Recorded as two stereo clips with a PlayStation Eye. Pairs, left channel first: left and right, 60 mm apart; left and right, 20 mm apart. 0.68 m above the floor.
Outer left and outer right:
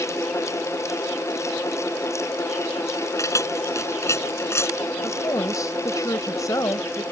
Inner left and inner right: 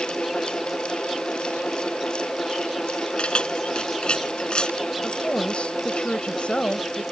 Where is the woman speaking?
70° left (ahead or behind).